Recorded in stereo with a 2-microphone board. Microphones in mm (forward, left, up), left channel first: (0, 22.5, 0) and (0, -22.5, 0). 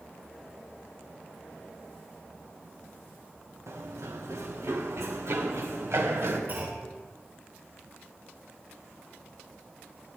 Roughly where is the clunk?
Right.